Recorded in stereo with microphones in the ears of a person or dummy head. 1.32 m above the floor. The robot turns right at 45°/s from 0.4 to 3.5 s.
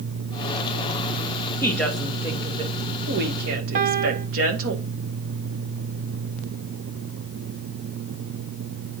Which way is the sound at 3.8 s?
45° right (ahead or behind).